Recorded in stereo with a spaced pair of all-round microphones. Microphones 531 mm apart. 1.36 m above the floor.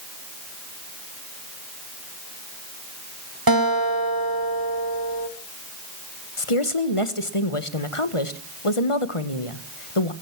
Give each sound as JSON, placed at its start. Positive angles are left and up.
{"t": 3.5, "sound": "a guitar", "side_deg": -40, "distance_m": 1.6}
{"t": 6.4, "sound": "a woman speaking", "side_deg": 70, "distance_m": 1.4}